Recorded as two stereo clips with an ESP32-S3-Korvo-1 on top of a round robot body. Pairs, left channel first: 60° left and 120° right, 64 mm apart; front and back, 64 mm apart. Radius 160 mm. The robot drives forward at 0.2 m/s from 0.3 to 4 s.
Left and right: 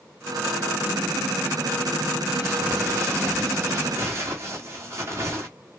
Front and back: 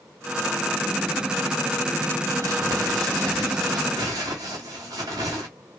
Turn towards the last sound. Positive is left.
turn(degrees=-165)